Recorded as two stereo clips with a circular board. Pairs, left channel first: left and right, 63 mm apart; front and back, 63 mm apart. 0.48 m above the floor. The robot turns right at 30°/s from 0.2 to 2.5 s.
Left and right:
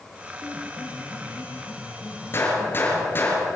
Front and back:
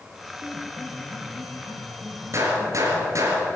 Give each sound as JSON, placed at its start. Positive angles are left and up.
{"t": 0.4, "sound": "a piano", "azimuth_deg": 60, "distance_m": 4.0}
{"t": 2.3, "sound": "a gunshot", "azimuth_deg": 140, "distance_m": 3.5}